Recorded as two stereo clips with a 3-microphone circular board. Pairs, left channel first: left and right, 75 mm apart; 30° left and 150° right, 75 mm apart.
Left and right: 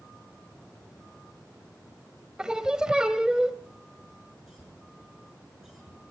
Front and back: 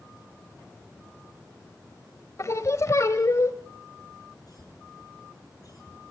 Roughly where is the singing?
Ahead.